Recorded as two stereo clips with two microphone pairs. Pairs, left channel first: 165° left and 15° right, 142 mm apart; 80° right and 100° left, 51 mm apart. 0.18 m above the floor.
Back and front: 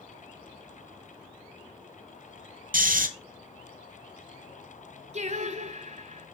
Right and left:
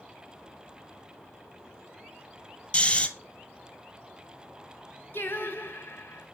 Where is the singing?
45° right, 1.2 m.